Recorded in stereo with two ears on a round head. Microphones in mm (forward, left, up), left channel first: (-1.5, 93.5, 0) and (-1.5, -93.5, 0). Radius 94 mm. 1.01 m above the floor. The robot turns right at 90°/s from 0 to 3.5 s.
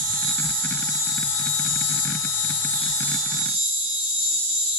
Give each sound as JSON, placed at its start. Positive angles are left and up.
{"t": 0.0, "sound": "an insect", "azimuth_deg": -105, "distance_m": 1.0}